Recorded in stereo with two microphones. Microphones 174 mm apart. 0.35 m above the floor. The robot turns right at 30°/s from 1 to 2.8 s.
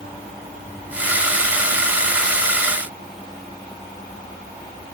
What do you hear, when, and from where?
Only background noise.